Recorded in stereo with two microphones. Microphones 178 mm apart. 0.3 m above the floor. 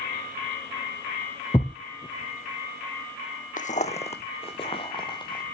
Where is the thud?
25° left (ahead or behind), 0.6 m.